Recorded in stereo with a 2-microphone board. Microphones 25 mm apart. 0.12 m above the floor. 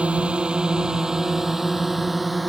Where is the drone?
50° right (ahead or behind); by 2.5 s centre (ahead or behind).